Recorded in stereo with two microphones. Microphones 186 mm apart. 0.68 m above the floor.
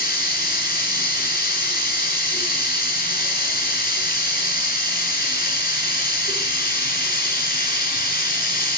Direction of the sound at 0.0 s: 55° left (ahead or behind).